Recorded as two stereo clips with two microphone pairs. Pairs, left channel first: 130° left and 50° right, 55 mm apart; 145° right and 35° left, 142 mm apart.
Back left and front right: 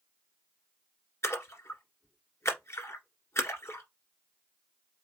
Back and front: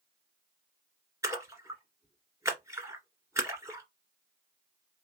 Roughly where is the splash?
Left.